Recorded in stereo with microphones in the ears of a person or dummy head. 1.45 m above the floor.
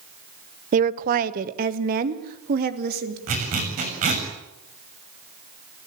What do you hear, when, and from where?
0.7 s a woman speaking: 45° right (ahead or behind), 1.0 m; by 3.2 s 55° right (ahead or behind), 4 m
3.3 s a zipper: 40° right (ahead or behind), 6.5 m